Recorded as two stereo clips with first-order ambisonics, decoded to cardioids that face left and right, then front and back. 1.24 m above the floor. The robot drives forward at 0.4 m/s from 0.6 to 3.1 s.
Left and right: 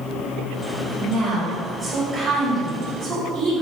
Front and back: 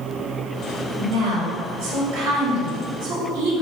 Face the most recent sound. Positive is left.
turn(degrees=180)